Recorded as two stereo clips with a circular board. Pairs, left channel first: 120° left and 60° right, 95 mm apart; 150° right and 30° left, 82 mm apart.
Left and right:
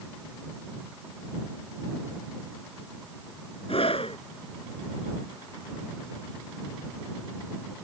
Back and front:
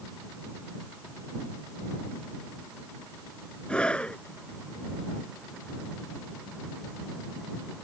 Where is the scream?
130° left.